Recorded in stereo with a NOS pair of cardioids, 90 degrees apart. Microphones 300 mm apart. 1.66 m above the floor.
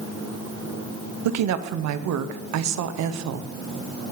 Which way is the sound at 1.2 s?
65° right.